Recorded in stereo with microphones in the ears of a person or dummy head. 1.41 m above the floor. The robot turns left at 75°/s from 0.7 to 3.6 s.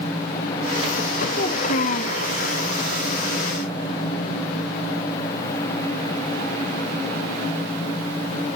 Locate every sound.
1.3 s a child speaking: 130° left, 0.8 m; by 2.2 s 65° left, 0.8 m